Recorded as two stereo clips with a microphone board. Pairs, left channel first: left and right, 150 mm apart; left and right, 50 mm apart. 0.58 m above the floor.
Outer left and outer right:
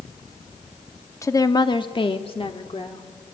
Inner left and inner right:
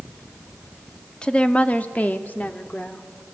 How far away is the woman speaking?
About 1.2 m.